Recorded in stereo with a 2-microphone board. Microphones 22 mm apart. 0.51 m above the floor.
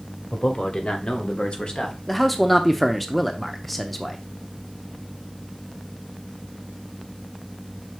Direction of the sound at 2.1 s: 5° left (ahead or behind).